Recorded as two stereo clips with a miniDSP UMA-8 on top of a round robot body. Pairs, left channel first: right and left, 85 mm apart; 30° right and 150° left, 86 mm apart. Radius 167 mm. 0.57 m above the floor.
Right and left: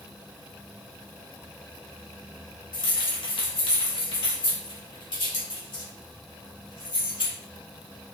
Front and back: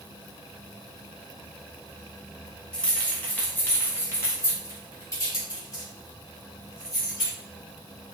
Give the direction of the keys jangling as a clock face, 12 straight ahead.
4 o'clock.